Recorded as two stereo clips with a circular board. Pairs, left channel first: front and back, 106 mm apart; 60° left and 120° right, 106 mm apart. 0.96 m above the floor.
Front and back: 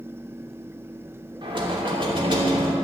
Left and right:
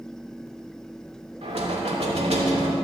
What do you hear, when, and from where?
1.4 s knocking: 140° right, 2.5 m